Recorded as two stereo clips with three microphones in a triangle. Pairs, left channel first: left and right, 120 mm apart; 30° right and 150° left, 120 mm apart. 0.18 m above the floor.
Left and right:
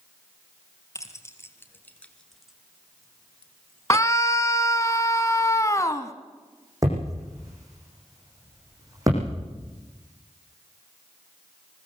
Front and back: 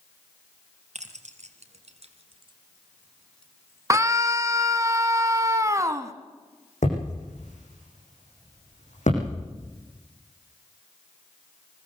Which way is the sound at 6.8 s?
30° right.